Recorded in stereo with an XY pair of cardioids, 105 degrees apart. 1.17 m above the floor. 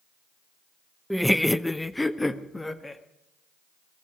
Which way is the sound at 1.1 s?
Straight ahead.